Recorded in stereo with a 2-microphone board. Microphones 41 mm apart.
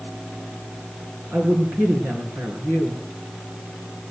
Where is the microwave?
No microwave in this recording.